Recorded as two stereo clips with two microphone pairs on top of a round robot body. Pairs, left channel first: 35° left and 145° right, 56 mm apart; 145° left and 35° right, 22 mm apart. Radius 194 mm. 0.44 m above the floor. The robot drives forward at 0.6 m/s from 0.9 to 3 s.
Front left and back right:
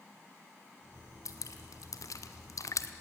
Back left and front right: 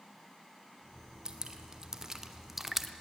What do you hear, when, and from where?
1.2 s dripping: 20° left, 1.7 m; by 2.9 s 50° left, 0.9 m